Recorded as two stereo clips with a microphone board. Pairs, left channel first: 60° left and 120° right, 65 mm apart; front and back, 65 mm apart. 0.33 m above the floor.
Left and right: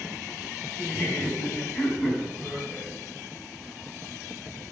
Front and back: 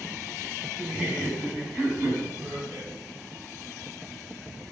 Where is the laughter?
115° left, 3.5 m; by 2.9 s 130° left, 2.5 m.